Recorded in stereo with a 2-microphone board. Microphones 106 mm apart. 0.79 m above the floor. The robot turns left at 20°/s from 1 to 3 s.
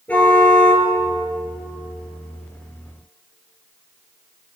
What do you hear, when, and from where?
0.1 s a car horn: 15° left (ahead or behind), 8 m